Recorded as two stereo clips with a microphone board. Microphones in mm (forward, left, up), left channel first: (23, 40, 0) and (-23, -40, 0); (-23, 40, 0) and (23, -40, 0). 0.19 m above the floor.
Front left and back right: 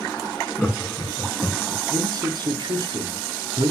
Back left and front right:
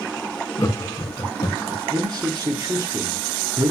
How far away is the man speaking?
About 3 m.